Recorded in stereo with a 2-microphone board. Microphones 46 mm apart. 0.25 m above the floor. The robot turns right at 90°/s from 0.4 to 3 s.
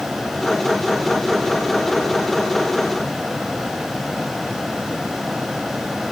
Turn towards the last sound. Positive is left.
No sound to turn to.